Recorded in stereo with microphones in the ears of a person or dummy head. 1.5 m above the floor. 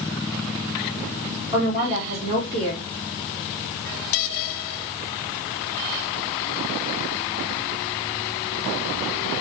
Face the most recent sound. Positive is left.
turn(degrees=-25)  # may be behind; listen again after turning